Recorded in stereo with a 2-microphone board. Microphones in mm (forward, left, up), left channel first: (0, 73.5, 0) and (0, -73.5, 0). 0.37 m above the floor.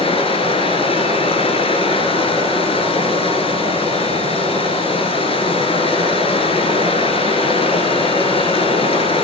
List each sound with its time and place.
0.0 s running water: 40° left (ahead or behind), 1.2 m